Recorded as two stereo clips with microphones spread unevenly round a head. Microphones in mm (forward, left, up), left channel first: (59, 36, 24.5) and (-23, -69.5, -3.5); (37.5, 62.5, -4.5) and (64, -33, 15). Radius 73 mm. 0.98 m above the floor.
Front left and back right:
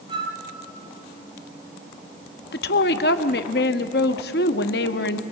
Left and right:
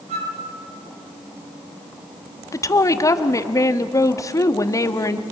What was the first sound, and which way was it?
A flute, 70° right.